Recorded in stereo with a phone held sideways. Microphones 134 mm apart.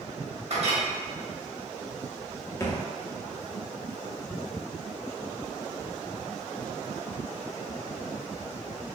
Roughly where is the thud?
Left.